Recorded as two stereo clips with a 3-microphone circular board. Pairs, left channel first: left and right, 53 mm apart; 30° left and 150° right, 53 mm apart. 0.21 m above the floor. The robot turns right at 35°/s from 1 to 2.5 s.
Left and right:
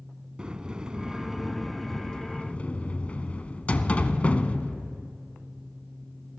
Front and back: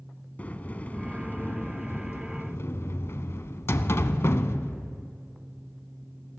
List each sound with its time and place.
0.4 s a sliding door: 20° right, 0.5 m; by 5.1 s 30° left, 0.5 m